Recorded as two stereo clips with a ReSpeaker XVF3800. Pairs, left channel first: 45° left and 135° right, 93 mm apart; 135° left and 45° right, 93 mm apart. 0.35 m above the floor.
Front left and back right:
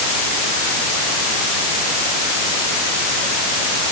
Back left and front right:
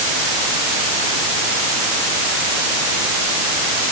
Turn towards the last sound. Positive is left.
No sound to turn to.